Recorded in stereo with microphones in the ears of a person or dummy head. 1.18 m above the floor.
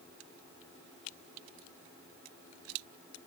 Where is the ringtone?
No ringtone in this recording.